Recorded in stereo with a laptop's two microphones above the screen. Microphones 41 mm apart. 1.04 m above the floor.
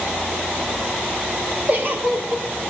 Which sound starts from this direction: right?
A giggle, at 1.7 s.